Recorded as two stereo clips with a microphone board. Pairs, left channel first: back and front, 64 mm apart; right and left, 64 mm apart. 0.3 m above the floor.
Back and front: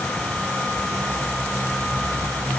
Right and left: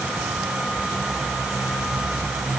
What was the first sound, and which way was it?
Only background noise.